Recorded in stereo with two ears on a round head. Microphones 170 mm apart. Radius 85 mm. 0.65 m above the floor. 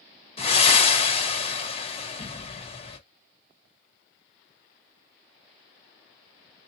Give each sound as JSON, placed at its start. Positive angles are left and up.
{"t": 0.4, "sound": "breathing", "side_deg": 30, "distance_m": 1.3}